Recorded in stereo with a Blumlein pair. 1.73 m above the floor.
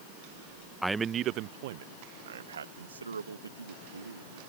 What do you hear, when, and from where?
0.8 s a man speaking: straight ahead; by 4.4 s 75° right